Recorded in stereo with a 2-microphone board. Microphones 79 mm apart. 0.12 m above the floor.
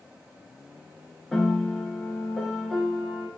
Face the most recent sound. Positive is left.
turn(degrees=5)  # may be behind; listen again after turning